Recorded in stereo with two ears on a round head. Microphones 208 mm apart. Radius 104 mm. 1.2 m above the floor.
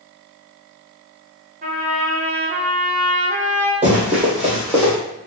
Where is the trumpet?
35° right (ahead or behind), 0.8 m.